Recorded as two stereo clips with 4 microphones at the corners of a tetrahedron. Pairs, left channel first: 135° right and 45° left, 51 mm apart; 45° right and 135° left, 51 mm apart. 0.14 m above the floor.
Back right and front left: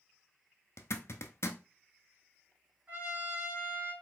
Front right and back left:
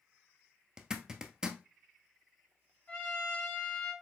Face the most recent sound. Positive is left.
turn(degrees=5)